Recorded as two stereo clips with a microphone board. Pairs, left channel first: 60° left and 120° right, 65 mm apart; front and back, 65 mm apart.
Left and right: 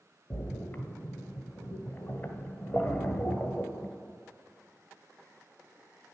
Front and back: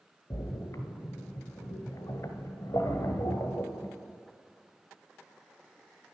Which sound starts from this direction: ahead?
A splash, at 0.3 s.